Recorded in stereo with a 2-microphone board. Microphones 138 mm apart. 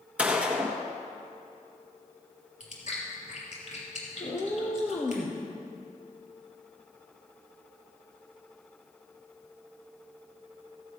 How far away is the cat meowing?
About 2 m.